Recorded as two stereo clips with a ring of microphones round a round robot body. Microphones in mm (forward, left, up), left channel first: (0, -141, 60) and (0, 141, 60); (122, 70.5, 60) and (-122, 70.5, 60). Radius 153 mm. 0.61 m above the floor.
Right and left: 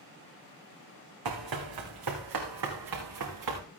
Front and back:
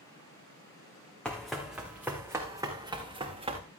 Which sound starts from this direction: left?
Running footsteps, at 1.2 s.